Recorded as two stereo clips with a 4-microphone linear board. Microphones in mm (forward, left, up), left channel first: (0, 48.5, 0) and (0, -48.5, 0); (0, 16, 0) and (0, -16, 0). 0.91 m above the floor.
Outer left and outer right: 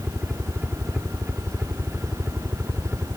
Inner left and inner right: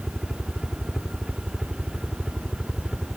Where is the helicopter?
10° right (ahead or behind); by 3.2 s 20° right (ahead or behind).